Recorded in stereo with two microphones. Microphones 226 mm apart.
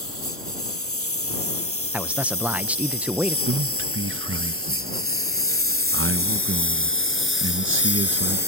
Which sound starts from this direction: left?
A lawn mower, at 0.0 s.